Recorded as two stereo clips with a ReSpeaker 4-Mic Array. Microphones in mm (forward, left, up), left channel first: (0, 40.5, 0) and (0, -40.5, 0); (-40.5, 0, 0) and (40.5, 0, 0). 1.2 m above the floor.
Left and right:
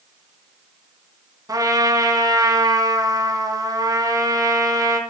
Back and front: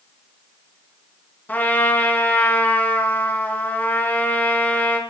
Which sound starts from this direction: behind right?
A trumpet, at 1.5 s.